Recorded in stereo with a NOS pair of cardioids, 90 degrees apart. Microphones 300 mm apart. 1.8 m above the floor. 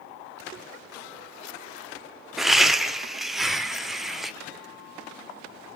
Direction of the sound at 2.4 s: Straight ahead.